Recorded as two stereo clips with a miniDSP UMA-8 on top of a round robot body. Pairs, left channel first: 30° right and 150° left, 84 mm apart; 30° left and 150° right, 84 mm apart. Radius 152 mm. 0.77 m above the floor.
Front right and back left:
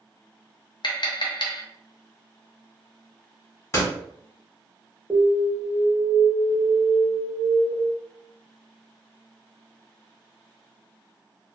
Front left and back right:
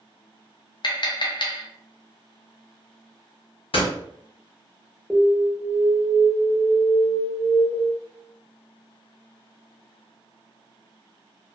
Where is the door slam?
20° left, 1.2 m.